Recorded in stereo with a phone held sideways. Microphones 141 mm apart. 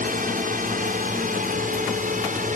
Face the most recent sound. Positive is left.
turn(degrees=-65)  # may be behind; listen again after turning